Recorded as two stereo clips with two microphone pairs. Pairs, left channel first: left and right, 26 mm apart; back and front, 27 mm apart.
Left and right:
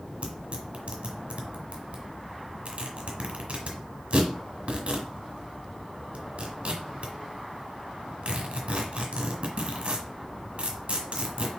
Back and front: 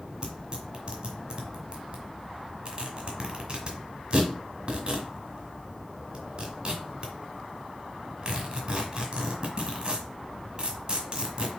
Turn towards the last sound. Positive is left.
turn(degrees=-55)